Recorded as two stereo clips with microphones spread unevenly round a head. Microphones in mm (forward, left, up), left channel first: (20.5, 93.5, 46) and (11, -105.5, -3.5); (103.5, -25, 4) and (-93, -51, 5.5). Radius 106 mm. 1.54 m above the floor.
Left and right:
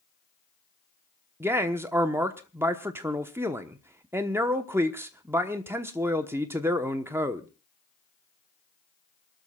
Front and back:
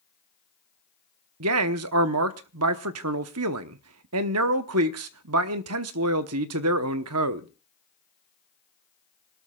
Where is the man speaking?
175° right, 1.0 m.